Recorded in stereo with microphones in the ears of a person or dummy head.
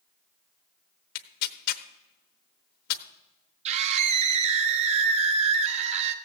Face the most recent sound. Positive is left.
turn(degrees=-40)  # may be behind; listen again after turning